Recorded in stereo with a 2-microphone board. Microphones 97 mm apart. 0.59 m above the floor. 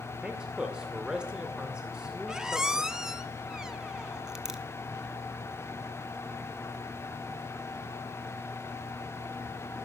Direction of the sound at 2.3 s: 5° right (ahead or behind).